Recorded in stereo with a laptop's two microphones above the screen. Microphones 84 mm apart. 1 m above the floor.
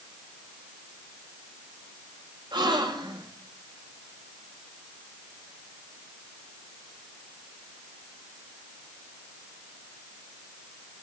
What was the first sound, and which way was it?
A gasp, 65° right (ahead or behind).